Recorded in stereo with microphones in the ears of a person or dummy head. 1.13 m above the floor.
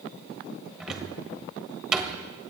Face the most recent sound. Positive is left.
turn(degrees=5)  # may be behind; listen again after turning